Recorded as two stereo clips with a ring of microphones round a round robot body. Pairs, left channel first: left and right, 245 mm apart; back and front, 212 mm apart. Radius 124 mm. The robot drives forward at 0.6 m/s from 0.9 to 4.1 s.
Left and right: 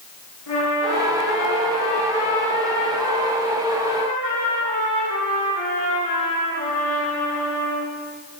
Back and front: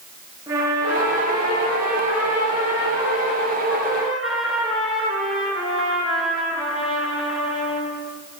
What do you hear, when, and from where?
0.5 s a trumpet: 75° left, 7 m; by 7.9 s 90° left, 7 m